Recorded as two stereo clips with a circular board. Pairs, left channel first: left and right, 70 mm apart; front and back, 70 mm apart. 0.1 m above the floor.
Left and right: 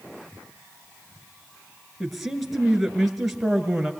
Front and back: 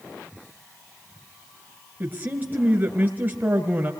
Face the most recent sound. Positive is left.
turn(degrees=-170)